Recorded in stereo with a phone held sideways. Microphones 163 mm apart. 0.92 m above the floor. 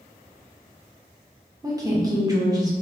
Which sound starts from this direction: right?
A woman speaking, at 1.6 s.